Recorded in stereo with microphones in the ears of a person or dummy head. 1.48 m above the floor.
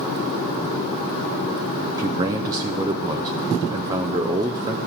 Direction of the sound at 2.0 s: 20° right (ahead or behind).